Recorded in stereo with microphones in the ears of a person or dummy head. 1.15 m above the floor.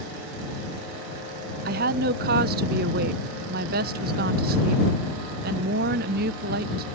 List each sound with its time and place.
1.6 s a woman speaking: 40° right (ahead or behind)